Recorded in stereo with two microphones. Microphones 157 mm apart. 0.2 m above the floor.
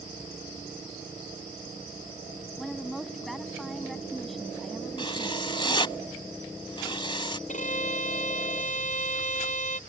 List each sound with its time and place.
2.6 s a woman speaking: centre (ahead or behind)
5.0 s writing: 30° left (ahead or behind)
7.5 s a violin: 55° left (ahead or behind)